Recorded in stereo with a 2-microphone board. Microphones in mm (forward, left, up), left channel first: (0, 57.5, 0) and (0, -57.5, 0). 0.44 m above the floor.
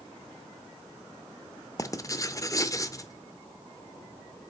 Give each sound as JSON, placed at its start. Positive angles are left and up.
{"t": 1.8, "sound": "writing", "side_deg": 30, "distance_m": 0.6}